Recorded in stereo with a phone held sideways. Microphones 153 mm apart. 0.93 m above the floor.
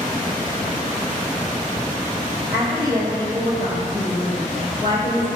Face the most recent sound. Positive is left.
turn(degrees=-30)  # may be behind; listen again after turning